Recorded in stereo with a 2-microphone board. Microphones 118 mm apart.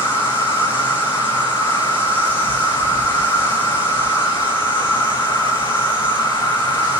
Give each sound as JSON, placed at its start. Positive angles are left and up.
{"t": 0.0, "sound": "an insect", "side_deg": 15, "distance_m": 1.2}